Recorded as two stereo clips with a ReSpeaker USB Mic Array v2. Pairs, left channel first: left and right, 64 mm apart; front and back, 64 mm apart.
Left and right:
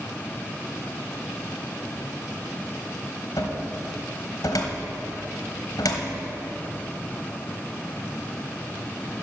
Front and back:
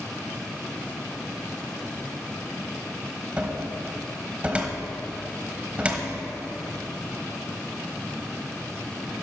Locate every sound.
3.4 s a cupboard door: 110° left, 1.2 m